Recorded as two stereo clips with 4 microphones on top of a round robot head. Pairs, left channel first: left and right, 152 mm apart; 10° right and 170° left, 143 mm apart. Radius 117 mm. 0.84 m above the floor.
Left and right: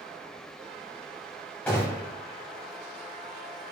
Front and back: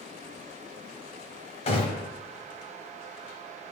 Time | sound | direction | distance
1.7 | a gunshot | 10° left | 0.7 m